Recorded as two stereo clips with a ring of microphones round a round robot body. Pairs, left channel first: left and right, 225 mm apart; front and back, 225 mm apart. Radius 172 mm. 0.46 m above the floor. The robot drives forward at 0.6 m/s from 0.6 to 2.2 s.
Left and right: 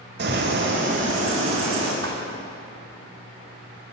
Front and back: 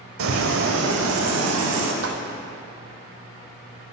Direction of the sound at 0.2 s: 145° right.